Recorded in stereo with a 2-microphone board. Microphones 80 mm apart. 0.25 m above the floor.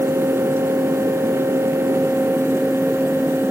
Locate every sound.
Only background noise.